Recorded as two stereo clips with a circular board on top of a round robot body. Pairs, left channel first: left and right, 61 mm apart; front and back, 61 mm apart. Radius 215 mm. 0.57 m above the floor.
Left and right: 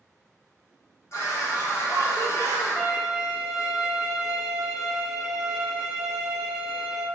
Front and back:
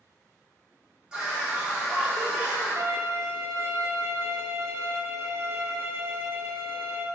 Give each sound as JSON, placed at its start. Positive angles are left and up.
{"t": 1.1, "sound": "a scream", "azimuth_deg": 105, "distance_m": 1.8}
{"t": 2.8, "sound": "a violin", "azimuth_deg": -175, "distance_m": 1.0}